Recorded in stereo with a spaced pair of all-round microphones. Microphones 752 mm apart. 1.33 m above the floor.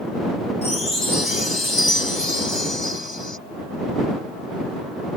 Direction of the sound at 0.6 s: 35° left (ahead or behind).